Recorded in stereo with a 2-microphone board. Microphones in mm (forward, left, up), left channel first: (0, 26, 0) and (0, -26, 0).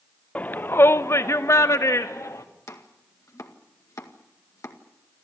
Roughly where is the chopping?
Left.